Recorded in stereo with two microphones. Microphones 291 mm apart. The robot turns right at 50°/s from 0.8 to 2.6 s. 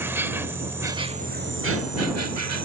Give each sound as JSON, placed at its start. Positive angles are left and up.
{"t": 0.0, "sound": "an insect", "azimuth_deg": -170}